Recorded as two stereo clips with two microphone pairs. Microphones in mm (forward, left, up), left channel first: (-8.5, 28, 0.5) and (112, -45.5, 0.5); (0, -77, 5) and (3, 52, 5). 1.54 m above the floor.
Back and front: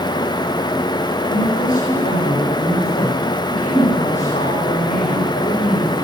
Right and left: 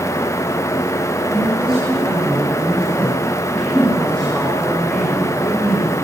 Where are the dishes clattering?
No dishes clattering in this recording.